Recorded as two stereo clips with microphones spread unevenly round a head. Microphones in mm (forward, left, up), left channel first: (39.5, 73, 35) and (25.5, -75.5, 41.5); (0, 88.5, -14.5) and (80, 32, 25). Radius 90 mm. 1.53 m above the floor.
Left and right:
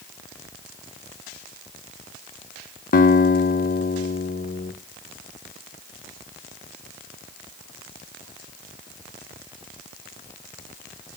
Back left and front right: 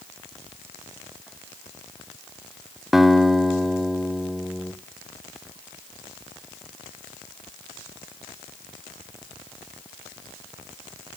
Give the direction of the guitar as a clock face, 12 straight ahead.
10 o'clock.